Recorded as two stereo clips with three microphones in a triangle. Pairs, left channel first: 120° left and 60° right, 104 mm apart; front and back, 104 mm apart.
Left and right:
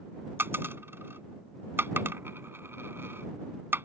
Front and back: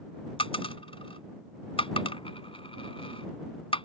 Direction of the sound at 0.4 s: 5° left.